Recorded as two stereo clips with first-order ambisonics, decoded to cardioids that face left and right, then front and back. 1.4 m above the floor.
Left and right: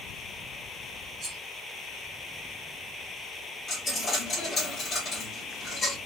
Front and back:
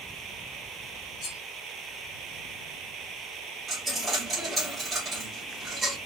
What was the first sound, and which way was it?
Cutlery clinking, 25° right.